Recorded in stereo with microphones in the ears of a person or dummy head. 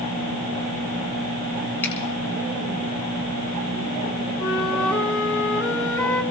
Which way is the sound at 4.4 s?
5° left (ahead or behind).